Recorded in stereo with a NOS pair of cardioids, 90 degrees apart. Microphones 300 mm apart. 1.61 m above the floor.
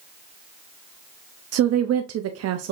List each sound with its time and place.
1.5 s a woman speaking: 55° right, 0.7 m